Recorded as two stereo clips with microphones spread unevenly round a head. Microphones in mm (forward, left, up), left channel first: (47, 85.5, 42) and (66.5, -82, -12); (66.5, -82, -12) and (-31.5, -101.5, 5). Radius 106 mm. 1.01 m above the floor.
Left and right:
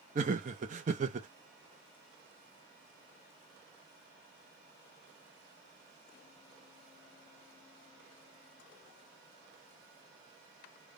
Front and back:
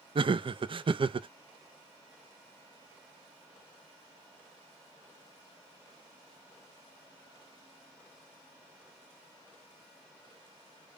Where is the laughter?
130° right, 0.6 m.